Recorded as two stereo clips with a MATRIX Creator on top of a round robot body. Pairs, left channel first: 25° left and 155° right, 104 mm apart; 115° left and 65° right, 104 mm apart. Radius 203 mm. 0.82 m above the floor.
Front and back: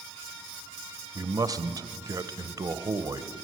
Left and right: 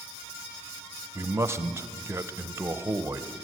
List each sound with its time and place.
1.1 s a man speaking: 120° right, 1.2 m